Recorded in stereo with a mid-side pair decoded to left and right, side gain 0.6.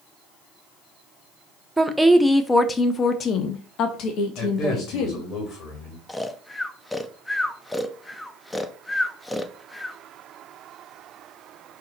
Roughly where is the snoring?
Ahead.